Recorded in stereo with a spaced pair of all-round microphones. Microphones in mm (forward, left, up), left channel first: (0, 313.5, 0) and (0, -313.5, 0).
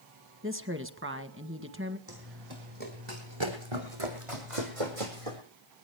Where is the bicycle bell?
No bicycle bell in this recording.